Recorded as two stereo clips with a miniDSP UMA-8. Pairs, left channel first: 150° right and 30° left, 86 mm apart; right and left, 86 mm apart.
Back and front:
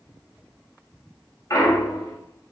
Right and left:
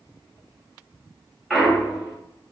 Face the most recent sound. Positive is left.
turn(degrees=180)